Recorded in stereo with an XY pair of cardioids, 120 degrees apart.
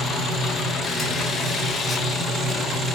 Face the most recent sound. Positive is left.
turn(degrees=25)